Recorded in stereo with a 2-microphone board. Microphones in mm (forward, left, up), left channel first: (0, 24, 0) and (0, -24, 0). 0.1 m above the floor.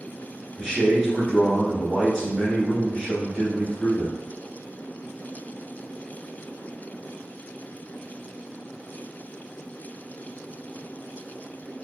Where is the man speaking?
10° left (ahead or behind), 1.5 m.